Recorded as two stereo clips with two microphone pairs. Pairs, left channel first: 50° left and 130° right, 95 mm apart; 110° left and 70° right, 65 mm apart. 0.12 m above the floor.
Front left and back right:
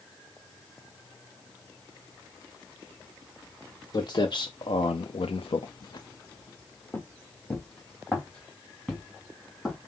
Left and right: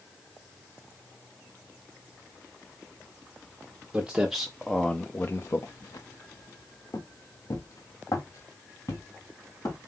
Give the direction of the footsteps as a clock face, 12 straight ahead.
12 o'clock.